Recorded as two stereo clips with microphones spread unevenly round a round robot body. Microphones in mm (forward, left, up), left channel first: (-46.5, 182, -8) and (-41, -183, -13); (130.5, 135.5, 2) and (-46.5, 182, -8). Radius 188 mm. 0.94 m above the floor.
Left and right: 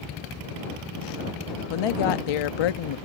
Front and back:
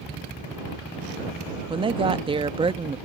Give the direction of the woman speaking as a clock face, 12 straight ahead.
9 o'clock.